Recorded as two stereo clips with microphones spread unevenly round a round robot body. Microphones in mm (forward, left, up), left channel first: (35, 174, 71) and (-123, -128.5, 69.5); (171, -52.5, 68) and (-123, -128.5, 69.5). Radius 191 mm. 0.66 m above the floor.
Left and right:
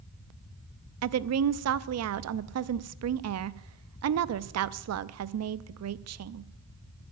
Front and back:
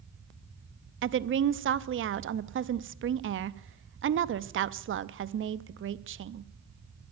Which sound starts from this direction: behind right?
A woman speaking, at 1.0 s.